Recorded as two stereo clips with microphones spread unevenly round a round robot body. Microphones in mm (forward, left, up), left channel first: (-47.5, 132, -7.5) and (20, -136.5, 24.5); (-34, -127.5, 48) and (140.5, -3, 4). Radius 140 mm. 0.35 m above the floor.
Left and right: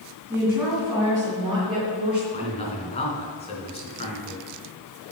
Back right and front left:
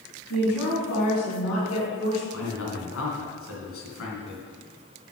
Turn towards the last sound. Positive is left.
turn(degrees=175)